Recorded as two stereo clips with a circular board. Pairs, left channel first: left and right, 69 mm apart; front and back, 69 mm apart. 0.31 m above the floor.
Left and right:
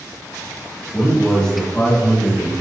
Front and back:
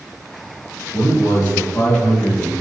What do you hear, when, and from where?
0.9 s a man speaking: 20° left, 1.9 m; by 2.5 s 40° left, 2.5 m